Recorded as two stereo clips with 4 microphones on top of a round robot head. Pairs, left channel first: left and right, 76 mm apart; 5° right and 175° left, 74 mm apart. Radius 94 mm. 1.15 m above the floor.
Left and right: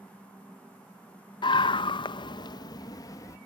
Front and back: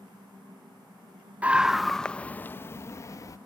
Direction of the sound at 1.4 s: 105° left.